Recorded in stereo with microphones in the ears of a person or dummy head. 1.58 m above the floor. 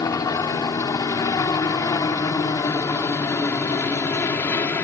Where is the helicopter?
20° left (ahead or behind); by 4.8 s 15° left (ahead or behind).